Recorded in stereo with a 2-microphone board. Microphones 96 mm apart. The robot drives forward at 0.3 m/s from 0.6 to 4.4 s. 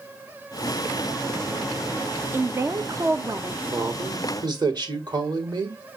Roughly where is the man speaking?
Right.